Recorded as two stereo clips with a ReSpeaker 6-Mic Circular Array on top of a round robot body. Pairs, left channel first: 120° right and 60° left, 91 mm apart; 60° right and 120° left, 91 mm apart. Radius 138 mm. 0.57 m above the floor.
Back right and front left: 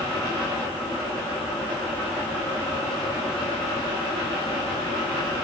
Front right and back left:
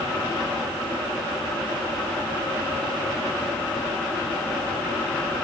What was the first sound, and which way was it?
Only background noise.